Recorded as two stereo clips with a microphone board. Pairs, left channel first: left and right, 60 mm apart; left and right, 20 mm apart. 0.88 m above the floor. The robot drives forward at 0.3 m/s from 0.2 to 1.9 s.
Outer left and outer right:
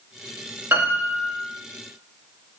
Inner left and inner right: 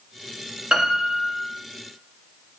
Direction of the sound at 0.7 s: 40° right (ahead or behind).